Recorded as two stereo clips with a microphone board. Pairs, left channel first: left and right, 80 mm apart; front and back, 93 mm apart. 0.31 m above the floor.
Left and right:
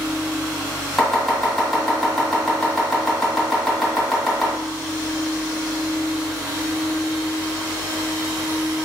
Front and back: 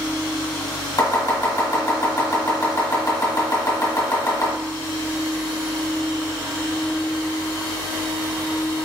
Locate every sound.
1.0 s chopping: 5° left, 2.0 m